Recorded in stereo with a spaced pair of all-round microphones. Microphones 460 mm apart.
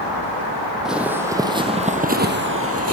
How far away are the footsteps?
About 3 m.